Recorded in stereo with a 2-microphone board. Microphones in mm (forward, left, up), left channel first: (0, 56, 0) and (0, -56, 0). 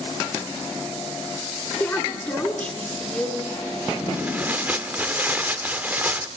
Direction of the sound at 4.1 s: 15° right (ahead or behind).